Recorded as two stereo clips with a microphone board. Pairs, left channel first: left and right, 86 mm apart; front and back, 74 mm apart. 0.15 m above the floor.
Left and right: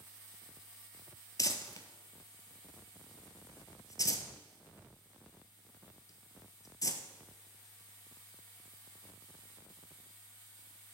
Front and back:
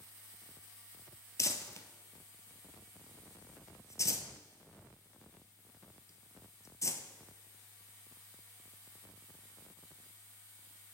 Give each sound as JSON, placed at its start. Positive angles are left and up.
{"t": 1.4, "sound": "crumpling", "azimuth_deg": 45, "distance_m": 0.6}